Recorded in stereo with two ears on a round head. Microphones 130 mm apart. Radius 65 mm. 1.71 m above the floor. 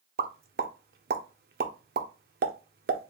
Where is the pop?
70° right (ahead or behind), 0.6 m.